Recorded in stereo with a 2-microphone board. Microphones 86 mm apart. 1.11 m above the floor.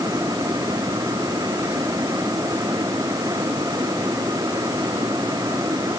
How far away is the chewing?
No chewing in this recording.